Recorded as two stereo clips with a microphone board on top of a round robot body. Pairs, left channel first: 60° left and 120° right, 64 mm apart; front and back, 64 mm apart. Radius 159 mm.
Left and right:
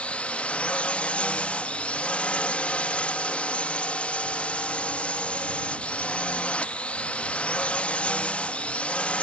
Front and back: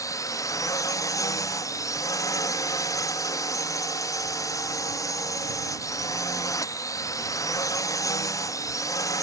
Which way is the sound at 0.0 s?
10° right.